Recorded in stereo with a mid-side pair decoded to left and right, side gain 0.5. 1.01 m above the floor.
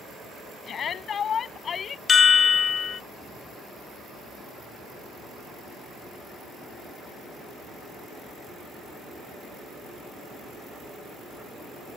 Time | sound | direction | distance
0.7 | a shout | 50° left | ?
2.1 | a chime | 45° left | ?